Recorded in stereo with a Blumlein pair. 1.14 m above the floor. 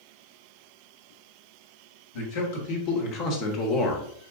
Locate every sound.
2.1 s a man speaking: 50° left, 1.6 m; by 4.1 s 5° left, 0.6 m